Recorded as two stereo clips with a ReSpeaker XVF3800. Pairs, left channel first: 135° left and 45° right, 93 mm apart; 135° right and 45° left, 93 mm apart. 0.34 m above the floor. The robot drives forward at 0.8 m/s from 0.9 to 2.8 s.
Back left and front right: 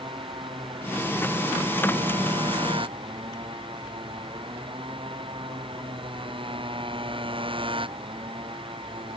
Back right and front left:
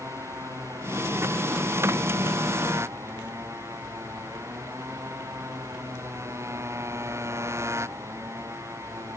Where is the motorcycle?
15° right; by 9.2 s 20° right.